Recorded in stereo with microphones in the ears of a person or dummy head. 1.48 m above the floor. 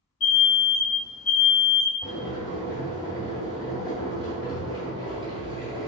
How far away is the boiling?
About 1.7 m.